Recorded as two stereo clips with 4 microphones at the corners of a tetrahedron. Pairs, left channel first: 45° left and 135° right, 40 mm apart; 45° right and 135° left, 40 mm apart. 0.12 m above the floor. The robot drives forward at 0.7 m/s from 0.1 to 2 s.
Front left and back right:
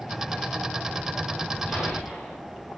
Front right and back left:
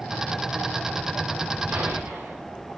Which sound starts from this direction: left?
A gunshot, at 1.7 s.